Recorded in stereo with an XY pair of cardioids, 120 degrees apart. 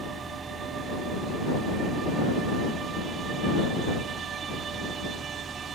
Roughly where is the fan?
Ahead.